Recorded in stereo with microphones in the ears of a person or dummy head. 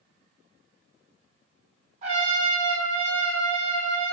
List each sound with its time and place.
2.0 s a trumpet: 45° right (ahead or behind), 1.3 m